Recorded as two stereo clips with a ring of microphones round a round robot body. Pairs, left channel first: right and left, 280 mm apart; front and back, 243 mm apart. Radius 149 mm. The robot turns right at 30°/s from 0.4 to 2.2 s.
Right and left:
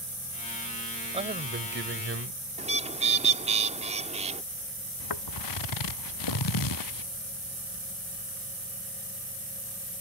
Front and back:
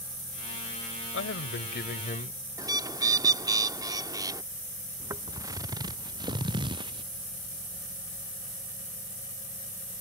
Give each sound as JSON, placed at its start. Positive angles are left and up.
{"t": 1.1, "sound": "a man speaking", "azimuth_deg": 20}
{"t": 2.6, "sound": "a bird", "azimuth_deg": 125}
{"t": 5.0, "sound": "footsteps", "azimuth_deg": -100}